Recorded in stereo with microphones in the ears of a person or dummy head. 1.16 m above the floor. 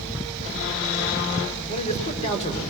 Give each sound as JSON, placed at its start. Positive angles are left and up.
{"t": 1.7, "sound": "a man speaking", "side_deg": 35, "distance_m": 4.5}